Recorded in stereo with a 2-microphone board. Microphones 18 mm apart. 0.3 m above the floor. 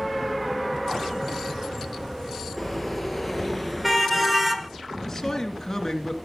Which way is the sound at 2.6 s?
Centre (ahead or behind).